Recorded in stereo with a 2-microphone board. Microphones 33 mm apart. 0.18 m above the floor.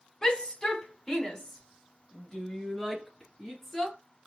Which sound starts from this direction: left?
A shout, at 0.2 s.